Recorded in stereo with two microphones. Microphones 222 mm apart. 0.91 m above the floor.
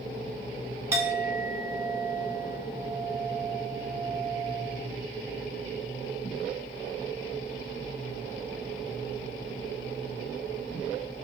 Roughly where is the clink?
Centre.